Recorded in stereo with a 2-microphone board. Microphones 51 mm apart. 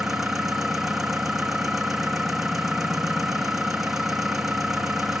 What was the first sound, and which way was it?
An engine running, 5° right (ahead or behind).